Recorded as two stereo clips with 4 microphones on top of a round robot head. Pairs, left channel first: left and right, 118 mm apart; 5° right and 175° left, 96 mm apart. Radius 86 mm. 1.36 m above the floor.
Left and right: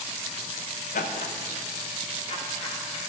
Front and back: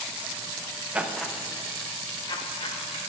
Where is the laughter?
100° left, 0.8 m; by 3.0 s 30° left, 1.9 m.